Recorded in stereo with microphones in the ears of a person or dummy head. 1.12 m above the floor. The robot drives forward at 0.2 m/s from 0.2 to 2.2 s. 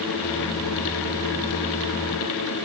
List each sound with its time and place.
Only background noise.